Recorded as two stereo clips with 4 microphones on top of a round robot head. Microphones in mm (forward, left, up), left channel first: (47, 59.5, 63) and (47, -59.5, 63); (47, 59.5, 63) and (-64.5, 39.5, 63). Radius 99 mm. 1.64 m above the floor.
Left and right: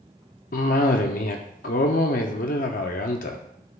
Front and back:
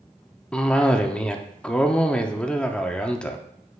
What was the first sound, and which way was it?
A cough, 90° left.